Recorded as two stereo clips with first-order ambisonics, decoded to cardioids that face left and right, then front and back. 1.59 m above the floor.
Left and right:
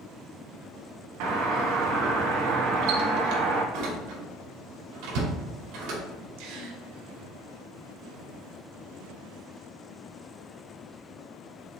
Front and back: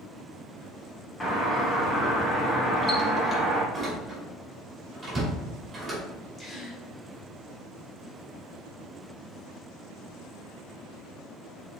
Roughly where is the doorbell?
Right.